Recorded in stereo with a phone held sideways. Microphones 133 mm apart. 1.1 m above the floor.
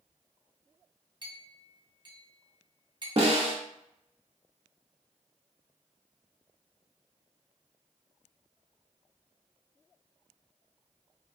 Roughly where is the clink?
Right.